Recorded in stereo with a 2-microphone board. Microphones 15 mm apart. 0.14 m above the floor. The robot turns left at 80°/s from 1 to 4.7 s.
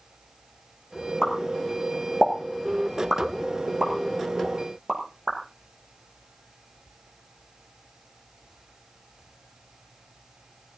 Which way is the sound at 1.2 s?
35° left (ahead or behind).